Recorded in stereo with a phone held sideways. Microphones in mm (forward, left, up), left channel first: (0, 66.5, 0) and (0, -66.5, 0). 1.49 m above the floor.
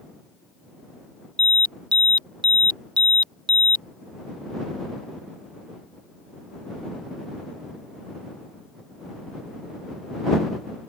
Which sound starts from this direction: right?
An alarm, at 1.4 s.